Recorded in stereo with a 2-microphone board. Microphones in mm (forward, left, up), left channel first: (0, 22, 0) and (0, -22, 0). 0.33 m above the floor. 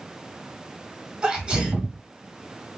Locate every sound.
1.2 s a sneeze: 25° right (ahead or behind), 1.4 m